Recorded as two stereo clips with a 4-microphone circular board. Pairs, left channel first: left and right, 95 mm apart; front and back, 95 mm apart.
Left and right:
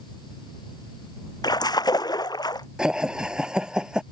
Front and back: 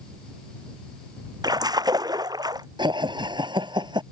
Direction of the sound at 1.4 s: 135° left.